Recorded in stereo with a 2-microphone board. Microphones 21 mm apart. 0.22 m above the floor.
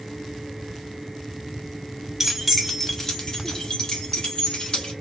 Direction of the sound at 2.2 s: 10° right (ahead or behind).